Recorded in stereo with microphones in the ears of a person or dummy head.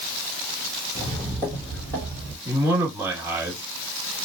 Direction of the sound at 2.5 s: 15° right (ahead or behind).